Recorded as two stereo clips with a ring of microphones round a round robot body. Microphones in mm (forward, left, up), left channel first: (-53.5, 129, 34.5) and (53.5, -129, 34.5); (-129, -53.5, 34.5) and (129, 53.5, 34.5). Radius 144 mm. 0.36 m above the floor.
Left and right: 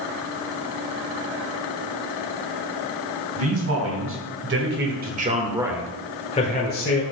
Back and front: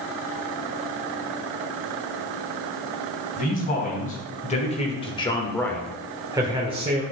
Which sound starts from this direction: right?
A man speaking, at 3.4 s.